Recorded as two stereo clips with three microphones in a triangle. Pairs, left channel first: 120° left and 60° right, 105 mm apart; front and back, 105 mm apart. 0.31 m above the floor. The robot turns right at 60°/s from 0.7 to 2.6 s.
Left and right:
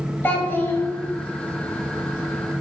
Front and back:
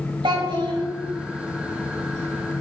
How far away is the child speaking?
About 0.7 m.